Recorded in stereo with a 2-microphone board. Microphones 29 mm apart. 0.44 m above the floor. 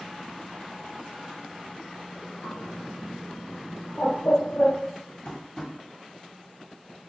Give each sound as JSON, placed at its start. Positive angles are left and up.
{"t": 2.4, "sound": "a bird", "side_deg": 45, "distance_m": 3.5}
{"t": 5.2, "sound": "tapping", "side_deg": 30, "distance_m": 1.9}